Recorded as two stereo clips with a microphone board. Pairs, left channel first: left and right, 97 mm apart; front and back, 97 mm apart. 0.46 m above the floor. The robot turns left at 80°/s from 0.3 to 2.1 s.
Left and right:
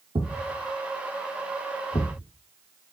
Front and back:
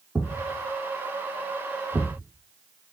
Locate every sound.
0.1 s a thud: 110° right, 3 m; by 2.2 s 105° left, 3 m